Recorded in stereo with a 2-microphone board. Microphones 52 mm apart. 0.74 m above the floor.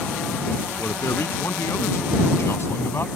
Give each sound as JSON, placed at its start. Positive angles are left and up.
{"t": 0.8, "sound": "a man speaking", "side_deg": 60}